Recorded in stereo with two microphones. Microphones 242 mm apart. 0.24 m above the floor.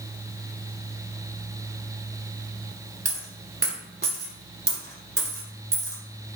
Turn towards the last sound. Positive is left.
turn(degrees=-45)  # may be behind; listen again after turning